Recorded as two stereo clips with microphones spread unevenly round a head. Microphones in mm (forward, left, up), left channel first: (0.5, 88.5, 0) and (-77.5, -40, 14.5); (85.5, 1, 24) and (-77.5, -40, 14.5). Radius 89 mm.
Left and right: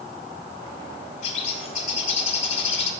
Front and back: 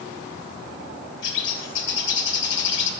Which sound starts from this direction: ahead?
A bird, at 1.2 s.